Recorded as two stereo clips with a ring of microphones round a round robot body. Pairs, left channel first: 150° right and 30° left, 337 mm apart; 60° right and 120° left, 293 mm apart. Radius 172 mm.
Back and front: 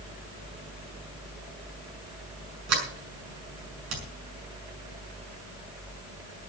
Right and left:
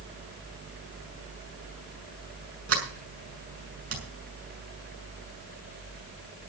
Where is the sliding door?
75° left, 6.5 m.